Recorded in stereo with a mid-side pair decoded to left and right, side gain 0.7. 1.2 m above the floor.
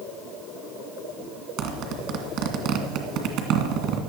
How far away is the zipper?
About 2 m.